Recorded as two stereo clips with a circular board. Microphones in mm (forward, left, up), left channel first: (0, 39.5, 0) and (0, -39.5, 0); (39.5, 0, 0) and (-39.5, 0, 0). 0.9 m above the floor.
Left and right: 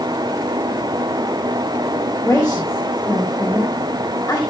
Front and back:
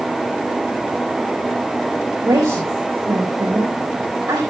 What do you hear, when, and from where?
2.2 s a woman speaking: 155° left, 4.5 m